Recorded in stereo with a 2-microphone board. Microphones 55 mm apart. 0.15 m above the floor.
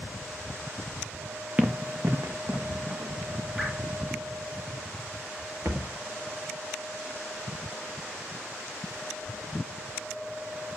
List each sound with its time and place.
1.6 s running footsteps: 25° right (ahead or behind), 0.7 m; by 3.4 s 65° right (ahead or behind), 3 m
3.6 s dripping: 10° right (ahead or behind), 4.5 m
5.7 s a thud: 50° right (ahead or behind), 1.6 m